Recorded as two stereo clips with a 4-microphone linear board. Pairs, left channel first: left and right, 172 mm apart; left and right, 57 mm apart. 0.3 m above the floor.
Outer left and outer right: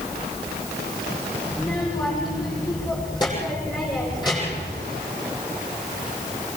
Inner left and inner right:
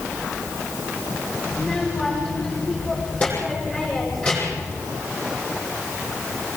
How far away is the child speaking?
About 8 m.